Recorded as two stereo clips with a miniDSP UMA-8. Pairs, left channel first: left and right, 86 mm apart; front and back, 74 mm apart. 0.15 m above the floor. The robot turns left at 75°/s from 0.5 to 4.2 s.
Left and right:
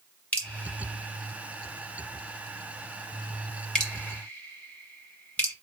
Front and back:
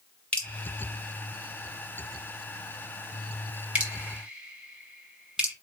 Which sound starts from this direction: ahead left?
Dripping, at 0.3 s.